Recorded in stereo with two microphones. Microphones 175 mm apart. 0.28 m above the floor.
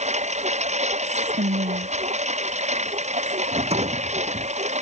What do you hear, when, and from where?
0.0 s a lawn mower: 40° right (ahead or behind)
1.0 s whispering: 80° right
3.5 s a rattle: 35° right (ahead or behind)